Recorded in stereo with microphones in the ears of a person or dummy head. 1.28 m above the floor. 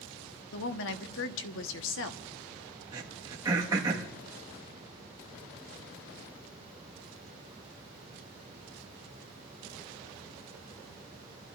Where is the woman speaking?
65° left (ahead or behind), 1.0 m.